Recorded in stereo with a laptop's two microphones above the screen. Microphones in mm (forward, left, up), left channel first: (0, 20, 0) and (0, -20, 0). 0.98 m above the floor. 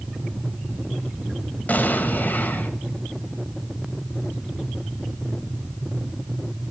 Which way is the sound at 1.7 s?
45° left (ahead or behind).